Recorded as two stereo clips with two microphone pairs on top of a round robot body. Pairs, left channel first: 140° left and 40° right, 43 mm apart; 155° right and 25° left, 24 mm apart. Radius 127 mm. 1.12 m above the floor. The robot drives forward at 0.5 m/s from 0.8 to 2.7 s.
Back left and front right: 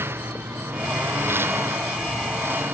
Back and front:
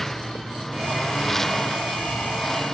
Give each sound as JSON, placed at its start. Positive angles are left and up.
{"t": 0.0, "sound": "a lawn mower", "azimuth_deg": -75}